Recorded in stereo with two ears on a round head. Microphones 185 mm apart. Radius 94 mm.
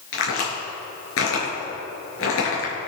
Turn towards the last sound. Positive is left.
turn(degrees=75)  # may be behind; listen again after turning